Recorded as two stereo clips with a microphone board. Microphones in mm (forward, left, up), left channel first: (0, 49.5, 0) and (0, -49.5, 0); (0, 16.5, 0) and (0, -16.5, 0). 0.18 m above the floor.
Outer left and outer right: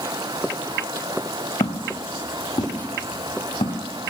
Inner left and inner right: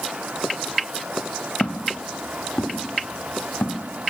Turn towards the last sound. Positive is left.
turn(degrees=85)